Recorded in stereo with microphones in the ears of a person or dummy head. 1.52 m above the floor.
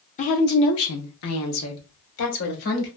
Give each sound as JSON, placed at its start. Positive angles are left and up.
{"t": 0.2, "sound": "a woman speaking", "side_deg": 35, "distance_m": 0.6}